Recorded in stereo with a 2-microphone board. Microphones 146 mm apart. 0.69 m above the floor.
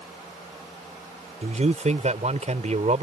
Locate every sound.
1.4 s a man speaking: 55° right (ahead or behind)